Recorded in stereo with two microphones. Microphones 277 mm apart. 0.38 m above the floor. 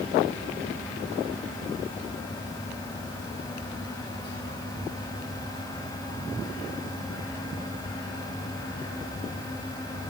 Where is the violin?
No violin in this recording.